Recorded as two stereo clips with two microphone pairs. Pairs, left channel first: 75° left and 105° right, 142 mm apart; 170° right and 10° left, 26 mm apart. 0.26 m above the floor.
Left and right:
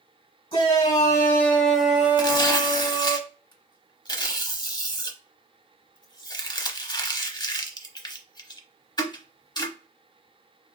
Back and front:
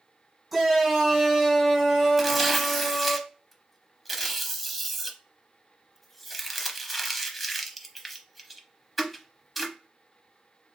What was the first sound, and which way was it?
A shout, 100° left.